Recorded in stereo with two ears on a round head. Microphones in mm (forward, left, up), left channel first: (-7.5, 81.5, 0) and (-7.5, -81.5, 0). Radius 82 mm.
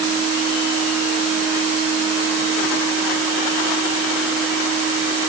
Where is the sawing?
No sawing in this recording.